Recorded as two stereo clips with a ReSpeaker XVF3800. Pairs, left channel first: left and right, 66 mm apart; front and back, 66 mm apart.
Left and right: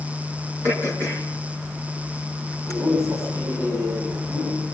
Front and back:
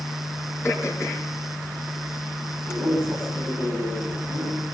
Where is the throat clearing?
45° right, 5 m.